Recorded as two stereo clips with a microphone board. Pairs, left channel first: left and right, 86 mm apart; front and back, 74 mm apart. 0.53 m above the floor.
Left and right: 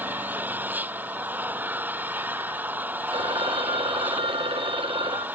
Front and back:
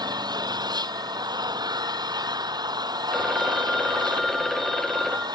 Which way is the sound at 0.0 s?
160° right.